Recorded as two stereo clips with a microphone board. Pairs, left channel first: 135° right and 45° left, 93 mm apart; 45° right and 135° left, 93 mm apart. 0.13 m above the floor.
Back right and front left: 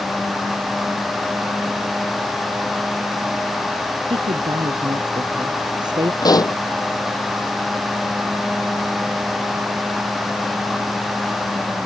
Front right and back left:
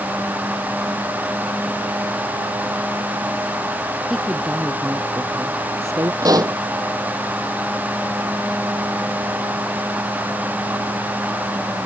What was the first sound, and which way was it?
A woman speaking, 50° left.